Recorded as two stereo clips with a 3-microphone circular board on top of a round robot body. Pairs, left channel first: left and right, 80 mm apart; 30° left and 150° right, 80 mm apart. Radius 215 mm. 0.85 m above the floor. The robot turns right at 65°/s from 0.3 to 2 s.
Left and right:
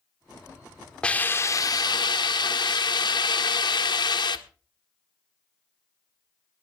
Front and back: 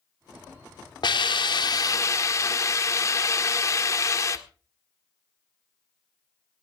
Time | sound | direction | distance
1.0 | a hiss | 10° left | 1.8 m